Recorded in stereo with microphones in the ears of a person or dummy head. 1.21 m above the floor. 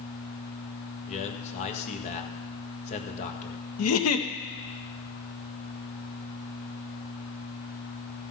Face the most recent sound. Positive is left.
turn(degrees=85)